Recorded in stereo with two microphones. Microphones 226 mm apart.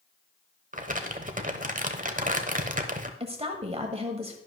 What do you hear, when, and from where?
0.7 s crumpling: 35° right (ahead or behind), 1.0 m
3.2 s a woman speaking: 25° right (ahead or behind), 1.4 m